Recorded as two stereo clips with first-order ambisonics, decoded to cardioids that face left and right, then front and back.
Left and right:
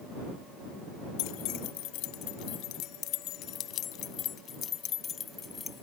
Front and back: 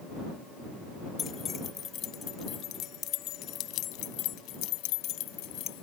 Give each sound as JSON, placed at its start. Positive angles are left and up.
{"t": 1.2, "sound": "keys jangling", "azimuth_deg": 65}